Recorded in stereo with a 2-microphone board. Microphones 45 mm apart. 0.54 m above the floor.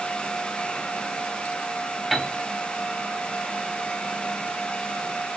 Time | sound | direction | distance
2.1 | a piano | centre (ahead or behind) | 0.9 m